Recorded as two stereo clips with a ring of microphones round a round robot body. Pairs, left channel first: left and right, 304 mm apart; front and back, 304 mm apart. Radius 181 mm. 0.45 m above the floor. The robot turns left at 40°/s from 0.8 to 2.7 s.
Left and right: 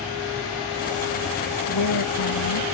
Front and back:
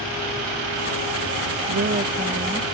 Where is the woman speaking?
130° left; by 2.7 s 90° left.